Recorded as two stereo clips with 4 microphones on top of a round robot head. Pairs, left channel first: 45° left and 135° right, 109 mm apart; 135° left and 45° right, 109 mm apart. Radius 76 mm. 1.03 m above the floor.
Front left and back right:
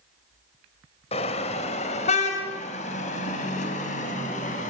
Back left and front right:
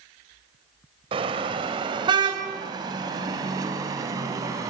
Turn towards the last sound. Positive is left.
turn(degrees=20)